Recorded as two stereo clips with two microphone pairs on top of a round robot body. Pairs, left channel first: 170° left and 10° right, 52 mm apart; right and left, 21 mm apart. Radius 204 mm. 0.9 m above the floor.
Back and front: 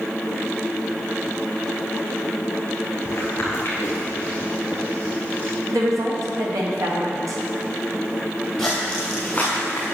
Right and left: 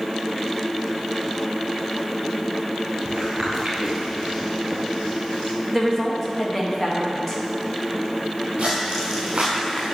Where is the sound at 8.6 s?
60° left, 1.1 m; by 9.9 s 170° right, 0.9 m.